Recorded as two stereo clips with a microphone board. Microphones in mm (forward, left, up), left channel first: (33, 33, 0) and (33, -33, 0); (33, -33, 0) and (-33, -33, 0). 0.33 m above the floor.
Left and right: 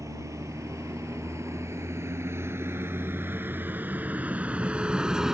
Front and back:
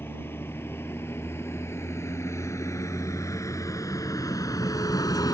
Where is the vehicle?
55° right; by 5.3 s 10° right.